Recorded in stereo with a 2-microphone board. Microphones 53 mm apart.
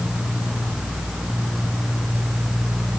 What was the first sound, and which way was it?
Only background noise.